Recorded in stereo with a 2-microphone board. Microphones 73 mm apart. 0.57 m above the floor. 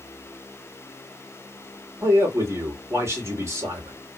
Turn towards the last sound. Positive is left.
turn(degrees=-40)  # may be behind; listen again after turning